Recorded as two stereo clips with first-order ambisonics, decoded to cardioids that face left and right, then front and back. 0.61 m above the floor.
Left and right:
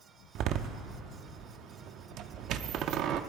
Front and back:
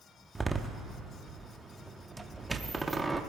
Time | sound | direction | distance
0.3 | a door slam | 100° right | 0.6 m